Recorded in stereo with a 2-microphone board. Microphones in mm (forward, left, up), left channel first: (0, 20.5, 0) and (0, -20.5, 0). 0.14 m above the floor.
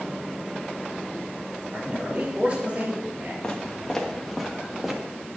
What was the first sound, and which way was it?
A man speaking, 40° right (ahead or behind).